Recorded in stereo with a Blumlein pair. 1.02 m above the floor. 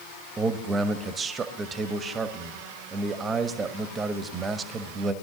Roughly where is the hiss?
I don't hear a hiss.